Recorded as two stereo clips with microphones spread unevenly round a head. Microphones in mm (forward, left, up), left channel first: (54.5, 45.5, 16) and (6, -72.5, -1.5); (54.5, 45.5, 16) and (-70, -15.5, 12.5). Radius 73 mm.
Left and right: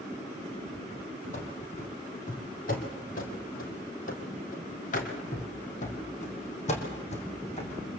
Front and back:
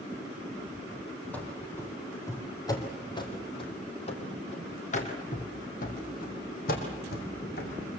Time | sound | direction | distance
1.3 | running footsteps | 105° left | 3.5 m